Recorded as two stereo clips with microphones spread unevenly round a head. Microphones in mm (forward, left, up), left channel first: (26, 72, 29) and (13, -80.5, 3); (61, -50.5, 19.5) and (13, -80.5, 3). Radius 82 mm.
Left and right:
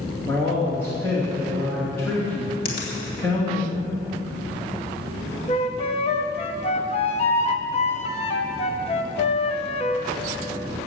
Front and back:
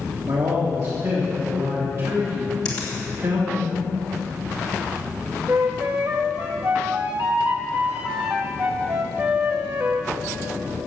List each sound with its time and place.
0.3 s a man speaking: 165° left, 2.5 m
2.6 s a finger snap: 60° left, 3 m
5.5 s a flute: 140° left, 0.8 m